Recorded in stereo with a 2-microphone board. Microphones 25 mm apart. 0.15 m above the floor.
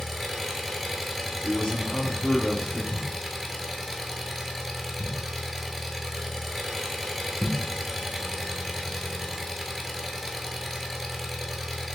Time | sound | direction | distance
0.0 | an engine running | 10° left (ahead or behind) | 0.8 m
1.4 | a man speaking | 40° left (ahead or behind) | 1.5 m
2.9 | a thud | 30° left (ahead or behind) | 1.0 m